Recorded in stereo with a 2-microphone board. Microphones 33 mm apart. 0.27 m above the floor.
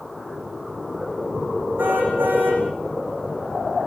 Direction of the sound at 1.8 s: 85° right.